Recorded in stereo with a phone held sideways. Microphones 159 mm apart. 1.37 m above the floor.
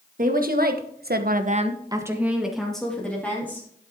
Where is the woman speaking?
60° right (ahead or behind), 1.9 m; by 3.7 s 10° left (ahead or behind), 3.5 m.